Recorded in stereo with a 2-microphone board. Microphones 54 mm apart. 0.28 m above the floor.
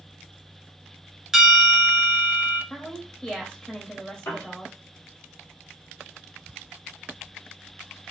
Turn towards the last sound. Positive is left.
turn(degrees=55)  # may be behind; listen again after turning